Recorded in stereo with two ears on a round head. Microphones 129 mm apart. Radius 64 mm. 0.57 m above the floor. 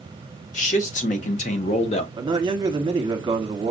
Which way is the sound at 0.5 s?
55° left (ahead or behind).